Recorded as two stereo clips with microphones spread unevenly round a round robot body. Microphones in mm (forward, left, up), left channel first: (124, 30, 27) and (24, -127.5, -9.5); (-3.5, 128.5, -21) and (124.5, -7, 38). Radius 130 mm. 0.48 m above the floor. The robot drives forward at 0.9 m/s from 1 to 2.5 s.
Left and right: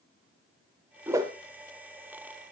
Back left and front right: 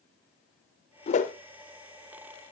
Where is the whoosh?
165° left, 0.6 m; by 1.3 s 170° left, 0.8 m.